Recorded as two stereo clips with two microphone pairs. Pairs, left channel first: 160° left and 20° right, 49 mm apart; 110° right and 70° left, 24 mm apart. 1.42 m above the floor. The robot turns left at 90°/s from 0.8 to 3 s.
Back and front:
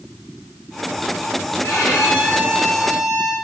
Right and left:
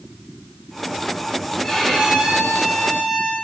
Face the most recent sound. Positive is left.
turn(degrees=60)